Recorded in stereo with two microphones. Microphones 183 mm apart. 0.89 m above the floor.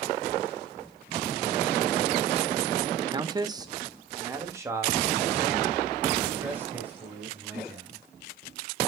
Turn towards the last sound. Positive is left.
turn(degrees=-10)  # may be behind; listen again after turning